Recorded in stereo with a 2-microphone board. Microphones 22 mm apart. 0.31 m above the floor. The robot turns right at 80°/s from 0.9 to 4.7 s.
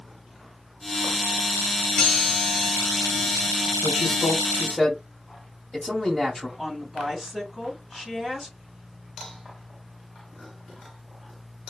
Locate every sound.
2.0 s a chime: 125° left, 1.6 m; by 3.7 s 95° right, 1.6 m
3.8 s a man speaking: 85° right, 1.8 m; by 6.5 s 15° right, 1.8 m
6.6 s a woman speaking: 30° right (ahead or behind), 2.5 m